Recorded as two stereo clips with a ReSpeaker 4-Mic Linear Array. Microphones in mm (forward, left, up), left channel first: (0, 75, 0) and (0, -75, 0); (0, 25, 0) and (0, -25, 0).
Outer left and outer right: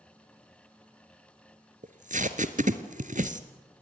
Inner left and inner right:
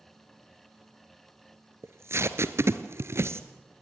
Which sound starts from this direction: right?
Tape being pulled, at 1.8 s.